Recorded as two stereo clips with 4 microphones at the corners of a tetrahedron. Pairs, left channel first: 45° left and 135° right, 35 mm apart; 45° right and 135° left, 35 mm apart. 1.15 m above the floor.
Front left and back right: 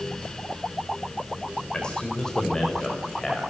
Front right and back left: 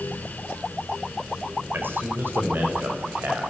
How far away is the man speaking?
About 4.5 m.